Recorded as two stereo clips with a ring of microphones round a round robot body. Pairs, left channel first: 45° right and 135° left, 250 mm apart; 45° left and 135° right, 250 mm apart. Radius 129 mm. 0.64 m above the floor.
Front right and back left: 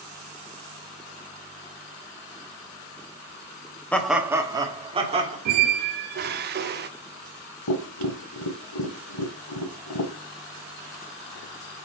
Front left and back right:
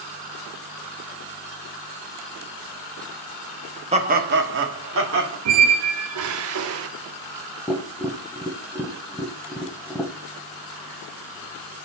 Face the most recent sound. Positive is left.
turn(degrees=-40)